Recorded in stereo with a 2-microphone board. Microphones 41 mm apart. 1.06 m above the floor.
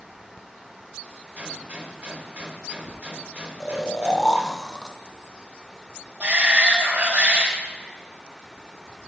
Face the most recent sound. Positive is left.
turn(degrees=-30)  # may be behind; listen again after turning